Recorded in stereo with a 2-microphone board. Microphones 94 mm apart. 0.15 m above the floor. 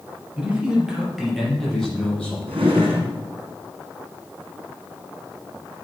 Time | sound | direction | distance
0.4 | a man speaking | 15° right (ahead or behind) | 4 m
2.5 | a drawer | 70° right (ahead or behind) | 3.5 m